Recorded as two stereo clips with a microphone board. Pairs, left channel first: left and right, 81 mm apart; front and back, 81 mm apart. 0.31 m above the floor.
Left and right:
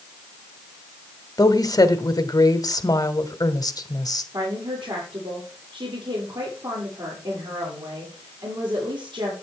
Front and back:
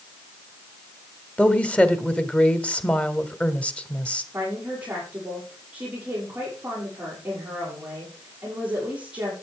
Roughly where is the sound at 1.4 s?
Left.